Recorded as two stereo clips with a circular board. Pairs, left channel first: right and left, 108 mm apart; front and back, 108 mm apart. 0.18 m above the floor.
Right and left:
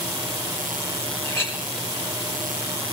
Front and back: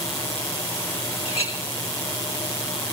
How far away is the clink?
About 3.5 m.